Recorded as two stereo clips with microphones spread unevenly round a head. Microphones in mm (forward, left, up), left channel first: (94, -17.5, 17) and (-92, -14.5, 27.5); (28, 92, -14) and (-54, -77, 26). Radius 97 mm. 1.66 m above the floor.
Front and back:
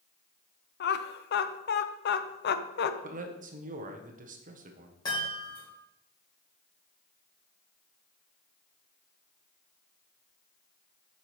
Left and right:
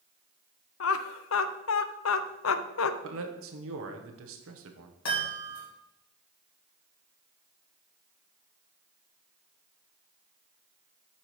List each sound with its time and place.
0.8 s laughter: 40° left, 0.6 m
3.0 s a man speaking: 130° right, 0.9 m
5.0 s a chime: 70° left, 3 m